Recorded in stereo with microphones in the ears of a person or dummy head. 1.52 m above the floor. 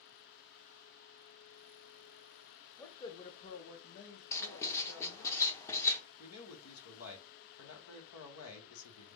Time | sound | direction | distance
2.8 | a man speaking | 15° left (ahead or behind) | 0.8 m
4.3 | writing | 15° left (ahead or behind) | 0.6 m
6.2 | a man speaking | 85° left | 1.1 m